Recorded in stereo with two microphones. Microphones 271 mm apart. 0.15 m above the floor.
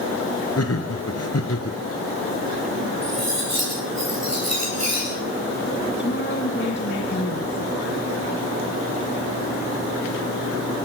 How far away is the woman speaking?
About 2.5 m.